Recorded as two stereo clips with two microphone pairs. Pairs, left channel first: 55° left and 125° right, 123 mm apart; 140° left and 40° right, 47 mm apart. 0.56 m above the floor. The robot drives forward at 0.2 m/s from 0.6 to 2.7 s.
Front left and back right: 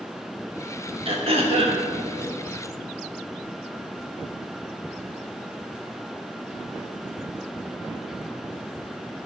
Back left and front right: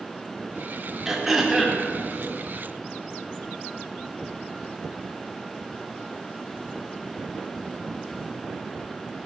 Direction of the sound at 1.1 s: 125° right.